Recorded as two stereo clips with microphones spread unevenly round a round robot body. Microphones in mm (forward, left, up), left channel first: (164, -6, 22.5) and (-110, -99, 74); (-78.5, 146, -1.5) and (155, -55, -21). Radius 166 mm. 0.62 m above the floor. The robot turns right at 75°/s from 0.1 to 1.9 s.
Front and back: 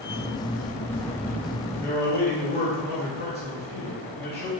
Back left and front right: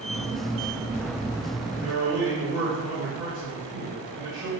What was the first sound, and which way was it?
A man speaking, 10° left.